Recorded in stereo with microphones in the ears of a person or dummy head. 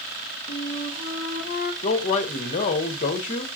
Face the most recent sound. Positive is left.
turn(degrees=40)  # may be behind; listen again after turning